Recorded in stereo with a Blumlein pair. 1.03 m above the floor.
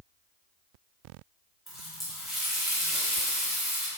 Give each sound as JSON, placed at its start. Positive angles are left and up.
{"t": 1.7, "sound": "a running tap", "azimuth_deg": 5, "distance_m": 0.7}